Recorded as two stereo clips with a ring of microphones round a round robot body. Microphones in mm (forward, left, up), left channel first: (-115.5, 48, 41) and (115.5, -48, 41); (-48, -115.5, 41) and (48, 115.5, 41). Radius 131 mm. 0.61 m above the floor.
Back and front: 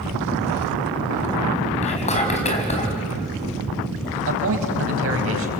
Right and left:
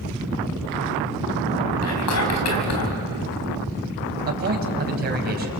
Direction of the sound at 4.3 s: 15° left.